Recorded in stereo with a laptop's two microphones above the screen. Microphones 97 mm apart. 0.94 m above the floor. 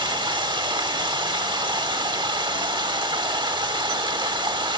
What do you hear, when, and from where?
0.0 s running water: 50° right (ahead or behind), 0.9 m